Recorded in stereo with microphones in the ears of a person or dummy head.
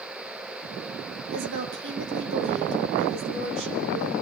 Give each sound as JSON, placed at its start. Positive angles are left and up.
{"t": 1.3, "sound": "a woman speaking", "side_deg": -60, "distance_m": 2.5}